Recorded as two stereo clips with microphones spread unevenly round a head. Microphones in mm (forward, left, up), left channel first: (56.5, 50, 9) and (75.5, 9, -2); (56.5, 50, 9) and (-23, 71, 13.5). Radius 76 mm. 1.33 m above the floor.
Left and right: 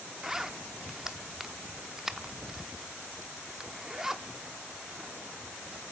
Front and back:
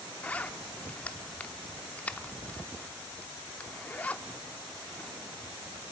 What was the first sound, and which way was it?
A zipper, 35° left.